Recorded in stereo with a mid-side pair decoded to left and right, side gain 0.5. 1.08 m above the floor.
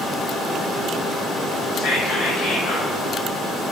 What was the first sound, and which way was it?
Whispering, 70° left.